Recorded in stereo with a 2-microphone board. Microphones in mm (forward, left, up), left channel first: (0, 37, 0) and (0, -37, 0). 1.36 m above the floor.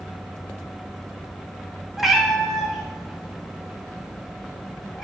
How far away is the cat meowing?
About 0.7 m.